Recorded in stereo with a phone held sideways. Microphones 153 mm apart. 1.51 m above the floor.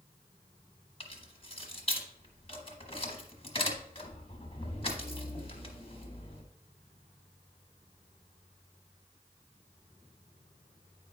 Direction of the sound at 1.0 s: 40° left (ahead or behind).